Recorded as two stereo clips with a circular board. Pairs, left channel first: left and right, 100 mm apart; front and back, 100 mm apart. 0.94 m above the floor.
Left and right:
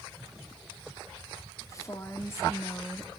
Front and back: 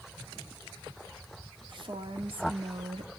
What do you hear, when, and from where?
1.7 s a woman speaking: 145° left, 2 m; by 3.1 s 160° left, 1.4 m